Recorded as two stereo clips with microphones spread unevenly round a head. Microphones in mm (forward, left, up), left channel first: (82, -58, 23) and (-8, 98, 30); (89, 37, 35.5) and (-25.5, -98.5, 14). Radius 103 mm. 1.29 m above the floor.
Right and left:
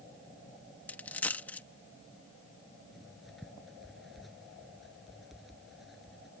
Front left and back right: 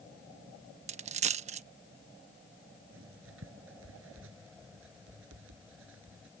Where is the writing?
150° right.